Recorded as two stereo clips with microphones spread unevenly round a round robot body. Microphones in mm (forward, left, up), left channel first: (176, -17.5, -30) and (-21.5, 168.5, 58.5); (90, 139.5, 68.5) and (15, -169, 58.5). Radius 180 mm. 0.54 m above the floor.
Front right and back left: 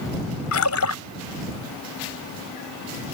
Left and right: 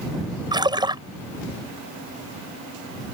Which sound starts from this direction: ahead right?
A splash, at 0.5 s.